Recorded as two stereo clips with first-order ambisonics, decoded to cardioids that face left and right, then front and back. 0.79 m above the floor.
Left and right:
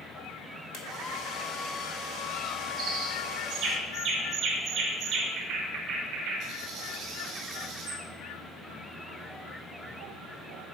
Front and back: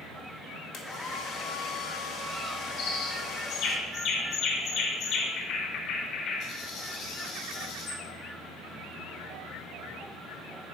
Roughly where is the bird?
Ahead right.